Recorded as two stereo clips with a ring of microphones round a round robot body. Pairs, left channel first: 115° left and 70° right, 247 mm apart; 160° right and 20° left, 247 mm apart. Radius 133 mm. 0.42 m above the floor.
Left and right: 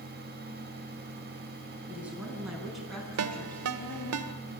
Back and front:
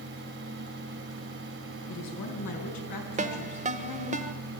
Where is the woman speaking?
150° right, 5.5 m; by 4.2 s 170° right, 4.5 m.